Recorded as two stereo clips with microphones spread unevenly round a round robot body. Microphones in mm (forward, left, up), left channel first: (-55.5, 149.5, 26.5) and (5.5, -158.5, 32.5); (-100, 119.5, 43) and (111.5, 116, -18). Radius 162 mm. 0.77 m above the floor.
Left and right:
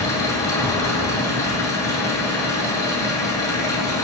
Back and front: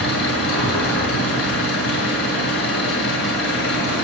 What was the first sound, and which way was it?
An engine running, straight behind.